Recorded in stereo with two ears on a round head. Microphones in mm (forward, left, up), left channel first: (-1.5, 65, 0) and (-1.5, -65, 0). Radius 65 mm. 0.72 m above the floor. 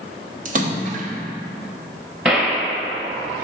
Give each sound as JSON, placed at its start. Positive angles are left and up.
{"t": 0.5, "sound": "a splash", "side_deg": -55, "distance_m": 0.9}
{"t": 2.2, "sound": "a gunshot", "side_deg": -10, "distance_m": 1.9}